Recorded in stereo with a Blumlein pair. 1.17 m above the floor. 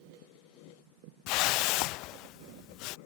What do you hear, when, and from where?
1.3 s a whoosh: 40° left